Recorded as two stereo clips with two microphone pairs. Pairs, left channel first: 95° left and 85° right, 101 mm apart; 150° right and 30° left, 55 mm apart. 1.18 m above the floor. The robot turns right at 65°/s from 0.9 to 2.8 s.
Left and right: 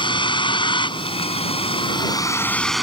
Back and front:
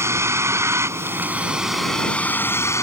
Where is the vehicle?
60° left; by 2.8 s 175° right.